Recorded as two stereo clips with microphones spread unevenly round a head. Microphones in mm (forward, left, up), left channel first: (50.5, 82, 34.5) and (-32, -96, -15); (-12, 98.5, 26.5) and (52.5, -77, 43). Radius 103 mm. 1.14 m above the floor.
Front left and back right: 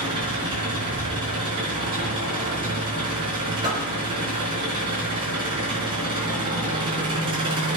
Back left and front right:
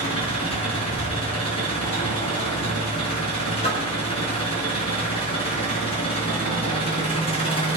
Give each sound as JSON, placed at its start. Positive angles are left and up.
{"t": 0.0, "sound": "an engine running", "azimuth_deg": 175, "distance_m": 4.5}
{"t": 3.6, "sound": "a door slam", "azimuth_deg": 175, "distance_m": 4.5}